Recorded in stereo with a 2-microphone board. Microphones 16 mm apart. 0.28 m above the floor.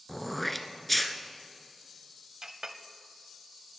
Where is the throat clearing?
15° left (ahead or behind), 0.9 m.